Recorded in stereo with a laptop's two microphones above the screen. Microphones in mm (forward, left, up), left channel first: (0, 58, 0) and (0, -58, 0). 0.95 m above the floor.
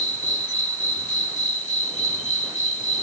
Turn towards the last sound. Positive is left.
turn(degrees=85)